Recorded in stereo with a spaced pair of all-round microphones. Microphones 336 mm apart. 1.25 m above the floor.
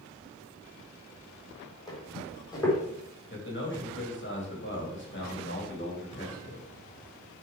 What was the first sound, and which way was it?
Footsteps, 10° left (ahead or behind).